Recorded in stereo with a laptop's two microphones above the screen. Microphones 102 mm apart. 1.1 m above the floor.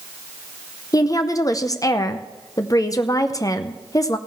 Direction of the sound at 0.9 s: 35° left (ahead or behind).